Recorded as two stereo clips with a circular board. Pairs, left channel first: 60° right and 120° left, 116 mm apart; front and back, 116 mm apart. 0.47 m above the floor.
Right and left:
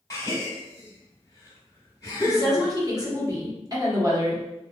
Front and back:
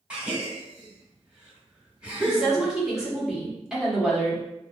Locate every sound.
0.1 s a gasp: 105° right, 1.4 m
2.2 s a woman speaking: 100° left, 1.4 m